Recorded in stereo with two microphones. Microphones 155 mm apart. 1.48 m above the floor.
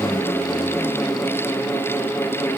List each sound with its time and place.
Only background noise.